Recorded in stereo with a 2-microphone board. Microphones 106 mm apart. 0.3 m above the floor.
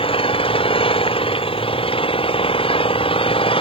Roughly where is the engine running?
Left.